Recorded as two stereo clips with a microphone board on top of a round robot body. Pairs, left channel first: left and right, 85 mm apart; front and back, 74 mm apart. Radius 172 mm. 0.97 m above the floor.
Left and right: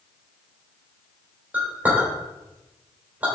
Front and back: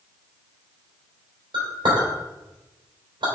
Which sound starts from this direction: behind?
A clink, at 1.5 s.